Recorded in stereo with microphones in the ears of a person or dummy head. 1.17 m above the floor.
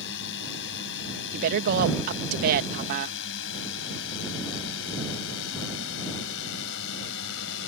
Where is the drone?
65° left (ahead or behind); by 7.7 s 75° left (ahead or behind).